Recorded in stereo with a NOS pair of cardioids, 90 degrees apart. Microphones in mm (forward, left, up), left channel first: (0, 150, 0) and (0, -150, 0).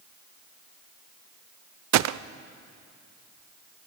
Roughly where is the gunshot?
Ahead right.